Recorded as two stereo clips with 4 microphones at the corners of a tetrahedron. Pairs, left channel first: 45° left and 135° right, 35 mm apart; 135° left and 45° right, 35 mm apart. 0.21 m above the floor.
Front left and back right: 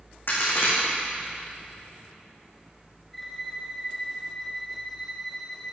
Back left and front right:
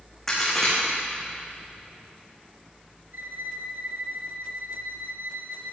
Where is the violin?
45° right, 1.1 m.